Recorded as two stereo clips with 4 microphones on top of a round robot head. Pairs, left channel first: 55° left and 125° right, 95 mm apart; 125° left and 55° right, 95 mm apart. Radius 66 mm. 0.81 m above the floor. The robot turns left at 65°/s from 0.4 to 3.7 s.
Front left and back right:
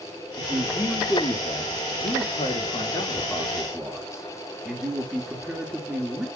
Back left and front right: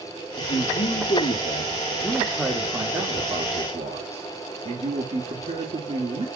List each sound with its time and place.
0.4 s a man speaking: 165° left, 1.8 m; by 6.3 s 50° right, 1.8 m